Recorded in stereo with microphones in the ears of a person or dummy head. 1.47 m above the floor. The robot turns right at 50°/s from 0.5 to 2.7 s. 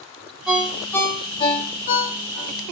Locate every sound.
0.5 s a ringtone: 5° right (ahead or behind), 0.7 m; by 2.5 s 50° left (ahead or behind), 0.7 m